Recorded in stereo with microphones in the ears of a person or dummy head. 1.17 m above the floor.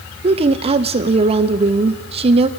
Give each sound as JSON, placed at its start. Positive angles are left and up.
{"t": 0.2, "sound": "a woman speaking", "side_deg": -30, "distance_m": 1.0}